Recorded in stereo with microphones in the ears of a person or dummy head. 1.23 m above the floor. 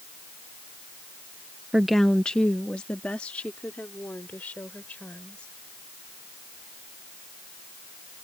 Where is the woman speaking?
5° right (ahead or behind); by 5.5 s 10° left (ahead or behind).